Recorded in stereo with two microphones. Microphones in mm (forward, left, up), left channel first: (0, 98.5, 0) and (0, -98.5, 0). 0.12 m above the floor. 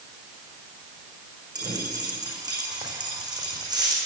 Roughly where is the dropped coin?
Right.